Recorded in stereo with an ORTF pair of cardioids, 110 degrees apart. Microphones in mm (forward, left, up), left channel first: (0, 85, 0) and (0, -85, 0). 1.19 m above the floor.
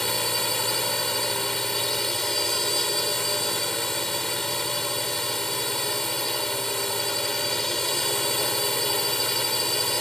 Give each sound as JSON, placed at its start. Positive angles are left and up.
{"t": 0.0, "sound": "a drone", "azimuth_deg": 0}